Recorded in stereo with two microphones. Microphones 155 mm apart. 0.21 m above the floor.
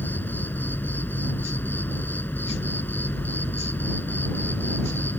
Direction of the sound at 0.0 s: 10° left (ahead or behind).